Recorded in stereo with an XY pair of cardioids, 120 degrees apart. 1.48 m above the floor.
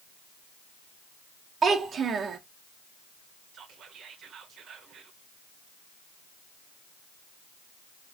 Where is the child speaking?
40° right, 1.1 m.